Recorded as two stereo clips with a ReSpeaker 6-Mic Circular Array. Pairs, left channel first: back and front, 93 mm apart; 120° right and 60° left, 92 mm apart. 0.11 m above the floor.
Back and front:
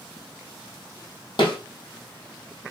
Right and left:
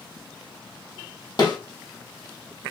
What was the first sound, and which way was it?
A snare drum, 160° right.